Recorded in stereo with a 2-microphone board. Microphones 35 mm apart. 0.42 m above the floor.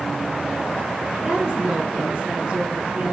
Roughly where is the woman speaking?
Right.